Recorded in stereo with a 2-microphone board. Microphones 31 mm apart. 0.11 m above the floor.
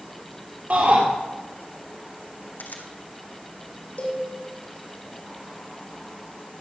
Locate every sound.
0.7 s a shout: 50° right (ahead or behind), 3 m
2.6 s a camera shutter: 70° left (ahead or behind), 1.4 m
4.0 s a cowbell: 50° left (ahead or behind), 4.5 m